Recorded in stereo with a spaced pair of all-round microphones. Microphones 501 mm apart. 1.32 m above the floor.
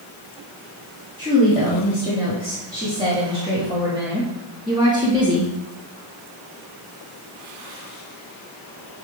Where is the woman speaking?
10° right (ahead or behind), 4 m.